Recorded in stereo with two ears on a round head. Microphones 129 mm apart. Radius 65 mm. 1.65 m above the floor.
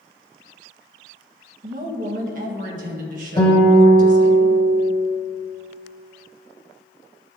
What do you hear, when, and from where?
1.6 s a woman speaking: 65° right (ahead or behind), 1.6 m
3.4 s a guitar: 25° left (ahead or behind), 1.9 m